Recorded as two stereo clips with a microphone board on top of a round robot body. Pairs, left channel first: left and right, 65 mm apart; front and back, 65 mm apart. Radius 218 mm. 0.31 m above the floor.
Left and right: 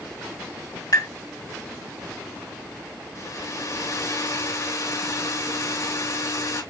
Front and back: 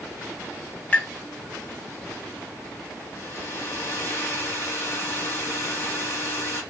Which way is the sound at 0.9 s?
65° left.